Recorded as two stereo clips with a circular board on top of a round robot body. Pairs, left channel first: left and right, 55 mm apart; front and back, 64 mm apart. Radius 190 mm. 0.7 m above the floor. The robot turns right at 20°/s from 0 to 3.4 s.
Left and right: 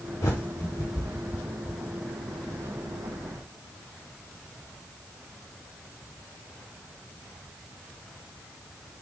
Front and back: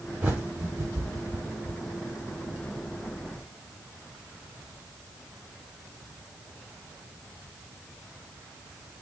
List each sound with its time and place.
0.2 s a bird: 115° left, 0.5 m; by 1.8 s 150° left, 0.5 m